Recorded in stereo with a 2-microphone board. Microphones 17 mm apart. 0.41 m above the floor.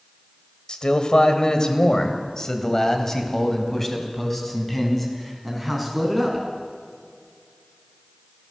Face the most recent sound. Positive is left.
turn(degrees=5)  # may be behind; listen again after turning